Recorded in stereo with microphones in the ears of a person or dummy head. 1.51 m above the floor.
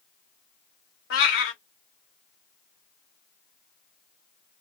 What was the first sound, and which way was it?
A cat meowing, 55° left (ahead or behind).